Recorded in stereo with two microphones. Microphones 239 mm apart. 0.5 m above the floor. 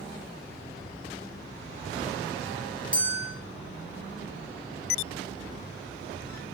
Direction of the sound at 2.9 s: 55° left (ahead or behind).